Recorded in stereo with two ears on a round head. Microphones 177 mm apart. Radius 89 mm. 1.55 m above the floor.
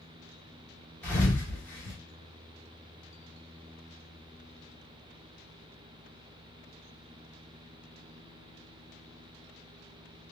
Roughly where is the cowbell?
I don't hear a cowbell.